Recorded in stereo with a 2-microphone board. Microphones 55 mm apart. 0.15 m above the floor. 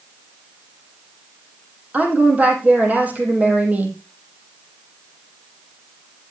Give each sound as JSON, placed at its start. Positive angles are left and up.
{"t": 1.9, "sound": "a woman speaking", "side_deg": -25, "distance_m": 4.5}